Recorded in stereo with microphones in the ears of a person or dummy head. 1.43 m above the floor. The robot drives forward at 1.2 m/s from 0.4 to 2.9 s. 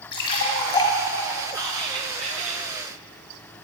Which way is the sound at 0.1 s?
25° left (ahead or behind).